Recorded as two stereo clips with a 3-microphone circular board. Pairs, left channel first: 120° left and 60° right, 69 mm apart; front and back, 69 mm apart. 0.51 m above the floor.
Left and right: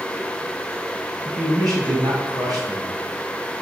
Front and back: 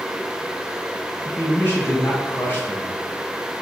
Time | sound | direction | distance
1.2 | a man speaking | 60° right | 3.5 m